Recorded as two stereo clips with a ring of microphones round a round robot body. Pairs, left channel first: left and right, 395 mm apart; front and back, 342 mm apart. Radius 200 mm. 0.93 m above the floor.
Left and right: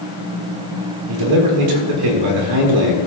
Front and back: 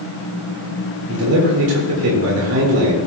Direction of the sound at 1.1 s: 125° right.